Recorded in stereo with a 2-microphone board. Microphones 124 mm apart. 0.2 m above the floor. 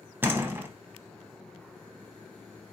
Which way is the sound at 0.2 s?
15° right (ahead or behind).